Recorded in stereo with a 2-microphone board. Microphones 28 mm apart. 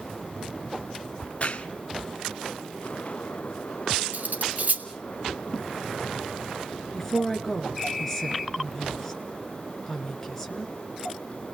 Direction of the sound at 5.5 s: 35° right (ahead or behind).